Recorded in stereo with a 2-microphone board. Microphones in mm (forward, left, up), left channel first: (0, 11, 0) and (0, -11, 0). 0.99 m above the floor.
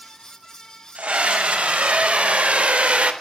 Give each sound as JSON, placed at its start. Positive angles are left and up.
{"t": 0.9, "sound": "a scream", "side_deg": -85, "distance_m": 5.0}